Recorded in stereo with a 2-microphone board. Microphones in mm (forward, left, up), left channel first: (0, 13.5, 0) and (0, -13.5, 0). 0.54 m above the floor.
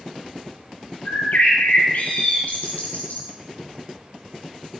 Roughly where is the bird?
Left.